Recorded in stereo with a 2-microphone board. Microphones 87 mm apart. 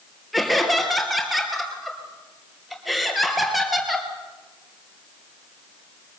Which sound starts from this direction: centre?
Laughter, at 0.3 s.